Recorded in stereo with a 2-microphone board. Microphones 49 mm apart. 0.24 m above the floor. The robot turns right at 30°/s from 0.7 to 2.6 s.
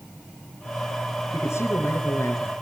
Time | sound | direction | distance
1.3 | a man speaking | 75° left | 4 m